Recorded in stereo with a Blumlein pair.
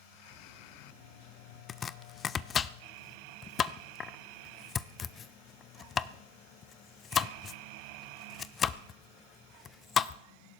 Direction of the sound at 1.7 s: 25° left.